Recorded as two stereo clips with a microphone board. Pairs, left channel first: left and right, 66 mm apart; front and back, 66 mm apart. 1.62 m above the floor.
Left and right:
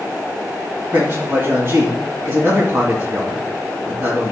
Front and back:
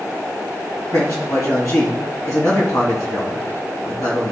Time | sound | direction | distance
0.9 | a man speaking | 35° right | 3 m